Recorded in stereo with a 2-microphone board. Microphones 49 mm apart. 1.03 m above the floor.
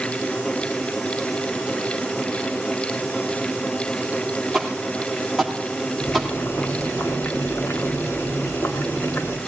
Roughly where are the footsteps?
Centre.